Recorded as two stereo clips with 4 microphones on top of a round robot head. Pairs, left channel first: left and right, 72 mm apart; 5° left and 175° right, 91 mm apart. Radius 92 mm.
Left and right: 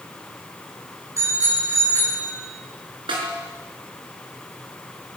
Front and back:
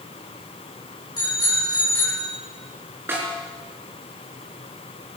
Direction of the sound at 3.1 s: 105° right.